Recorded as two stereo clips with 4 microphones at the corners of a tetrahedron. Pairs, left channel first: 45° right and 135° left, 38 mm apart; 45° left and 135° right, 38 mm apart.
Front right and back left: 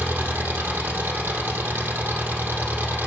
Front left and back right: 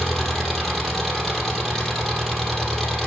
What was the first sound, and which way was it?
An engine running, 125° left.